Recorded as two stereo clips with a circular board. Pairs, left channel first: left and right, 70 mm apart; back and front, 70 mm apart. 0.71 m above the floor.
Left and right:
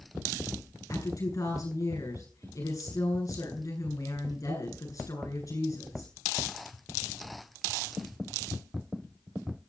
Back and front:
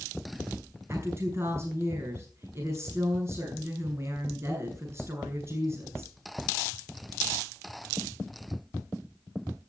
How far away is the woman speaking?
About 9.5 m.